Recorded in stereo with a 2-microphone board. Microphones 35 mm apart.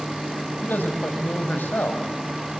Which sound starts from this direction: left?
A man speaking, at 0.6 s.